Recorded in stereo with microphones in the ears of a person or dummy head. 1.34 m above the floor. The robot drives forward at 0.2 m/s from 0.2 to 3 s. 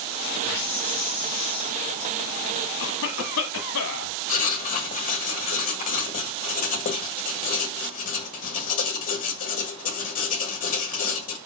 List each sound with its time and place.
0.4 s a hiss: 10° left (ahead or behind), 4 m
2.8 s a cough: 60° left (ahead or behind), 1.2 m
4.3 s writing: 40° left (ahead or behind), 1.7 m